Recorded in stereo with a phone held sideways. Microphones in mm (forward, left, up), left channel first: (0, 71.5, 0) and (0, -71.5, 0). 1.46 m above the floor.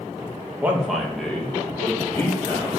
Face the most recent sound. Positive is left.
turn(degrees=20)  # may be behind; listen again after turning